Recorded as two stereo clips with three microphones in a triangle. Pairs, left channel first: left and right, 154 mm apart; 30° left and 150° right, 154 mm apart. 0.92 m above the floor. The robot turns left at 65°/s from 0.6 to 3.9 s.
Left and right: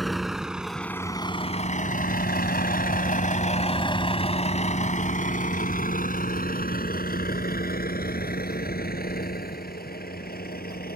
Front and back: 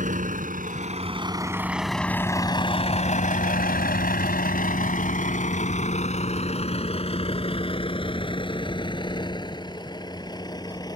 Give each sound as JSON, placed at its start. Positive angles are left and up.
{"t": 0.0, "sound": "a vehicle", "azimuth_deg": 180}